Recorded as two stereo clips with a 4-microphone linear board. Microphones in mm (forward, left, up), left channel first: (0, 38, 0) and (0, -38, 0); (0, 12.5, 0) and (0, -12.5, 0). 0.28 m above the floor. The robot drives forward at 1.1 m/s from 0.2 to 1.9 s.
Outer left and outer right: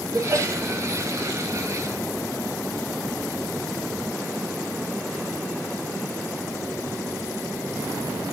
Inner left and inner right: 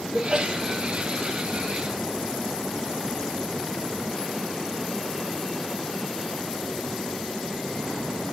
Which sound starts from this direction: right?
A sneeze, at 0.1 s.